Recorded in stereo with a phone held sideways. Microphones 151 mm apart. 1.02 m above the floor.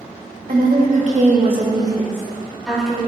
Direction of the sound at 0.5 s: 75° right (ahead or behind).